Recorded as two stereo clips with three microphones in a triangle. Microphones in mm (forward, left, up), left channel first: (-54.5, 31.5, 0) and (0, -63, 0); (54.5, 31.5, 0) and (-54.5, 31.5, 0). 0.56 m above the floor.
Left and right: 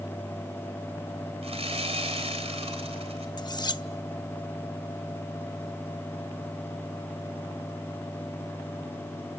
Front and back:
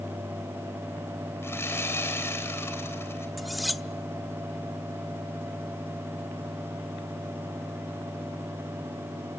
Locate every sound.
1.4 s sawing: 65° right, 3.5 m
3.4 s cutlery clinking: 90° left, 0.7 m